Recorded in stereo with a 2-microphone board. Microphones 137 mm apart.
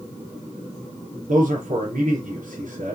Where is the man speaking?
75° right (ahead or behind), 4 m.